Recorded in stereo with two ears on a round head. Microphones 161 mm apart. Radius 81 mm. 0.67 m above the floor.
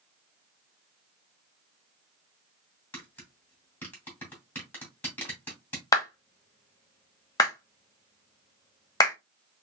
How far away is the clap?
About 0.8 m.